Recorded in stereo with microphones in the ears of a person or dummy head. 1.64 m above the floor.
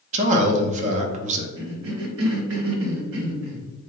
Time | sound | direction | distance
0.1 | a man speaking | 40° right (ahead or behind) | 0.5 m
1.6 | a cough | 75° right (ahead or behind) | 0.7 m